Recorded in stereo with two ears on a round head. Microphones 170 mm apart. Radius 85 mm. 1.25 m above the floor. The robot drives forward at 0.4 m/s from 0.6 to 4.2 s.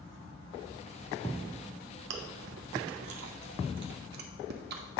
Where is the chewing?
65° right (ahead or behind), 0.9 m; by 5.0 s 60° right (ahead or behind), 1.0 m.